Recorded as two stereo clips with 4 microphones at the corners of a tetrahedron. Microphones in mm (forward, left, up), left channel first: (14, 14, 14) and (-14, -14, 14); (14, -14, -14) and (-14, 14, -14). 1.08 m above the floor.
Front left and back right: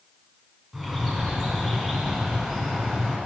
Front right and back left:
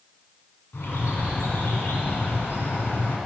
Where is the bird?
50° right, 2.5 m.